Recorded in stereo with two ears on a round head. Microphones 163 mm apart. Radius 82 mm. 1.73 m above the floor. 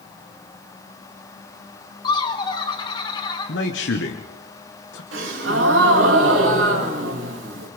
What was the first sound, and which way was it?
Laughter, 25° left (ahead or behind).